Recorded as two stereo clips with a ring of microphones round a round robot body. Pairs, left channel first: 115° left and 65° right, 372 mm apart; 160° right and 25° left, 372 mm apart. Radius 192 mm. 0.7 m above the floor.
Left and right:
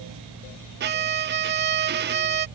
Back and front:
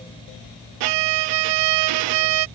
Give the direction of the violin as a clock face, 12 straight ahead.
12 o'clock.